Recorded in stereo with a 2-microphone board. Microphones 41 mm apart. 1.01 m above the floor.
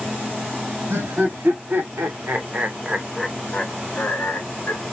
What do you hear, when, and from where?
0.9 s laughter: 70° right (ahead or behind), 1.4 m; by 4.8 s 45° left (ahead or behind), 1.2 m